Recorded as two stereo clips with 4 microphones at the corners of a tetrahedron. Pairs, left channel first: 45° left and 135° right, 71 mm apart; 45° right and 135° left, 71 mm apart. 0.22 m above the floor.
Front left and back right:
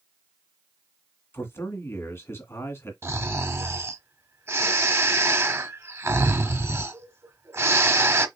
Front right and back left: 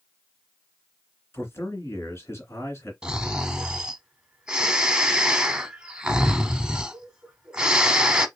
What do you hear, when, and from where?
1.3 s a man speaking: straight ahead, 2 m
3.0 s snoring: 155° right, 0.9 m